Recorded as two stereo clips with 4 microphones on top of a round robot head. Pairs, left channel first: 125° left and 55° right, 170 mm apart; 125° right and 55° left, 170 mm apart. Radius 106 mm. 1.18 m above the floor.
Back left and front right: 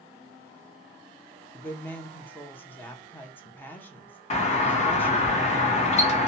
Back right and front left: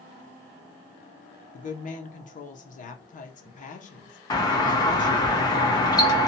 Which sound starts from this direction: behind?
A doorbell, at 4.3 s.